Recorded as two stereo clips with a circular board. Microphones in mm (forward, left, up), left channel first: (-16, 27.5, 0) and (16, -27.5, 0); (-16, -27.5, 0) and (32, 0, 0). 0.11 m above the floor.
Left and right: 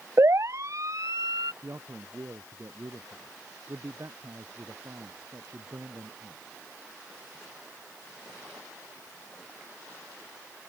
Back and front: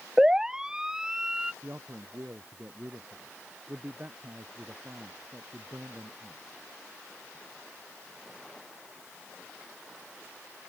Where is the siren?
45° right; by 1.5 s 50° right.